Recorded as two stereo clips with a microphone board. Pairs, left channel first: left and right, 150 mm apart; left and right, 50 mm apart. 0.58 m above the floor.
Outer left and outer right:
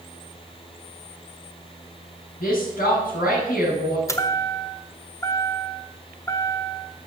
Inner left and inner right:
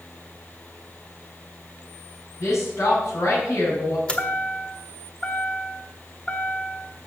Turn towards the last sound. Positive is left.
turn(degrees=20)  # may be behind; listen again after turning